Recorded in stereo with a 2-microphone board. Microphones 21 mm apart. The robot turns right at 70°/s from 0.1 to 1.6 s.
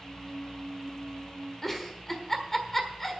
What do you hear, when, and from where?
1.6 s a giggle: 10° left (ahead or behind), 1.4 m